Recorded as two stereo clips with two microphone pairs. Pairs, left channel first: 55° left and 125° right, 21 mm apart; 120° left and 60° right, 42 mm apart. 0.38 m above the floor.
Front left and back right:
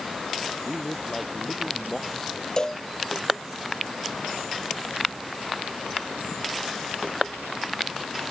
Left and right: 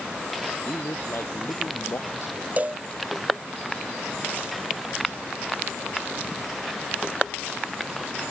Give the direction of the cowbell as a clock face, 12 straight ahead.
12 o'clock.